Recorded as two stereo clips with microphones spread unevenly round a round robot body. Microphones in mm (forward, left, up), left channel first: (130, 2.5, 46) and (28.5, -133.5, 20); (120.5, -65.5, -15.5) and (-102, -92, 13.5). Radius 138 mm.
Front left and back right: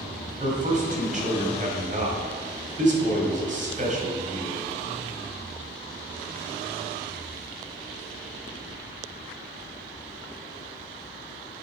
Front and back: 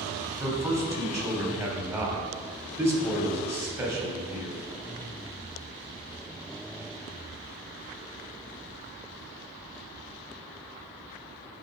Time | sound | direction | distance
0.4 | a man speaking | 95° right | 2.5 m